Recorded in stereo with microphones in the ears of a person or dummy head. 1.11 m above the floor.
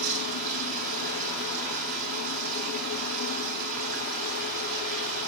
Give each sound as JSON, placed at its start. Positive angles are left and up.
{"t": 0.0, "sound": "running water", "side_deg": -45, "distance_m": 3.0}